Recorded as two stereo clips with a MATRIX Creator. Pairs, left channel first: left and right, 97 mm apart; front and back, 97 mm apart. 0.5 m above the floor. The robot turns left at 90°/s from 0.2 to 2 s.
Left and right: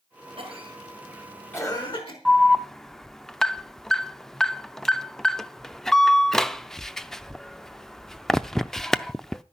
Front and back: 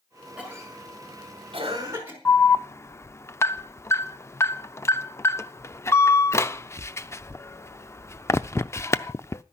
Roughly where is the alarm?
Ahead.